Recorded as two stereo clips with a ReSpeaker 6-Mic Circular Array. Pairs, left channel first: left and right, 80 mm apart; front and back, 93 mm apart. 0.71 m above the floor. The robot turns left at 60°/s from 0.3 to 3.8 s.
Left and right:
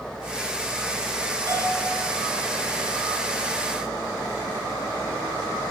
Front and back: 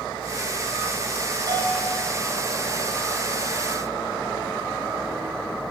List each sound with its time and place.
1.5 s a bell: 135° right, 4.5 m; by 1.9 s 160° right, 4.5 m